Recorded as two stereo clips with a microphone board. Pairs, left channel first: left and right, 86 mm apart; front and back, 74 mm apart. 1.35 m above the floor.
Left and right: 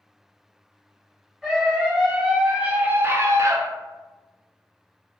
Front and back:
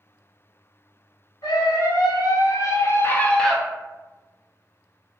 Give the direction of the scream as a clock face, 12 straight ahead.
12 o'clock.